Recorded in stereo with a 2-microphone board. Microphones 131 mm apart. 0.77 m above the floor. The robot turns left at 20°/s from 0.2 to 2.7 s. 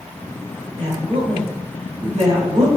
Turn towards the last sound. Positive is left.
turn(degrees=-120)